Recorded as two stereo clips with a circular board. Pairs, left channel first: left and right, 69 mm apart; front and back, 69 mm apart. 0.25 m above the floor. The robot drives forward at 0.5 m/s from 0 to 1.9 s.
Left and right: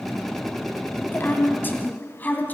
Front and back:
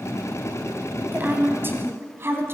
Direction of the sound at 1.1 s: 130° left.